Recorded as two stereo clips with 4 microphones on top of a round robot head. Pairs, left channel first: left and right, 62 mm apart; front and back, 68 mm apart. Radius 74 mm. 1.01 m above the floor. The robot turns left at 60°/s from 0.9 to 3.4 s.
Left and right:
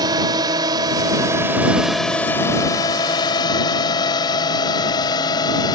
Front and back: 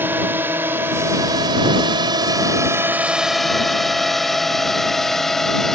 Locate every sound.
0.0 s a drone: 110° right; by 5.8 s 90° left